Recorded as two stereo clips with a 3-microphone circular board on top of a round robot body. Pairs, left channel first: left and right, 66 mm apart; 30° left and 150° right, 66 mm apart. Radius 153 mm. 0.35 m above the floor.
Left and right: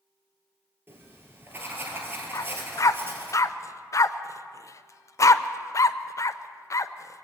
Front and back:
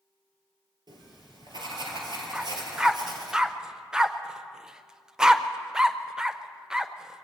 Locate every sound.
0.9 s writing: 150° right, 2.5 m
2.3 s a dog barking: 130° left, 0.6 m